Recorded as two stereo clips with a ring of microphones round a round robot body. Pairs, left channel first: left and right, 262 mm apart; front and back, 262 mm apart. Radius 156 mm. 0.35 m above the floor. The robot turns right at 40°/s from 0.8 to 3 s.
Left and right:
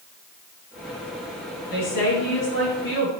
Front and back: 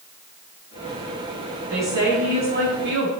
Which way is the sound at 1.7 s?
95° left.